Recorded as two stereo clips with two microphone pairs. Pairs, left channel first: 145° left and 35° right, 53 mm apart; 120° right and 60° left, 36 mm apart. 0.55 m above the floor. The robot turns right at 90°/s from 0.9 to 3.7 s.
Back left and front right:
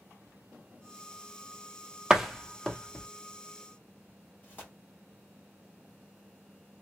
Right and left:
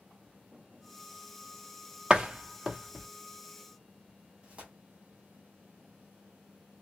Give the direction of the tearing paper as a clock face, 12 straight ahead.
8 o'clock.